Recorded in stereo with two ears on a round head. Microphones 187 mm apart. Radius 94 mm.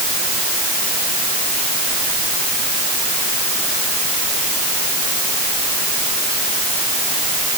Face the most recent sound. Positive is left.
No sound to turn to.